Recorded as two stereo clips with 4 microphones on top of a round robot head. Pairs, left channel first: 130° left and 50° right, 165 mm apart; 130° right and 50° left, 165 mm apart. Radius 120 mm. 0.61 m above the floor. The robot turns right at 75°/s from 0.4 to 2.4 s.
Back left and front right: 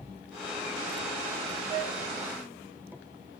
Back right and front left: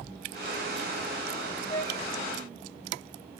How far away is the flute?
About 1.7 m.